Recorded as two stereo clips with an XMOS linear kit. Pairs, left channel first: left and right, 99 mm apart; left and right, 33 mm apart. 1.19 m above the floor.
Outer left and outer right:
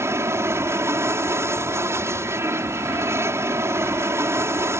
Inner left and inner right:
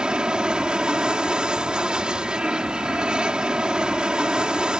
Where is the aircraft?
25° right (ahead or behind).